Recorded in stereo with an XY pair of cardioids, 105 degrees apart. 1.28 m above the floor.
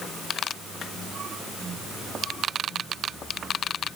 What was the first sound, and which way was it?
Only background noise.